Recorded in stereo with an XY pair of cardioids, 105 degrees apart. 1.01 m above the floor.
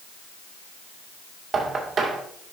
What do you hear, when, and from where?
1.5 s knocking: 40° right, 2.5 m